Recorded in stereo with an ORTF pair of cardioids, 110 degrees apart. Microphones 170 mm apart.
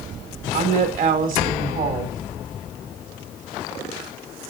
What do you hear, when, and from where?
0.5 s a woman speaking: 50° right, 2.0 m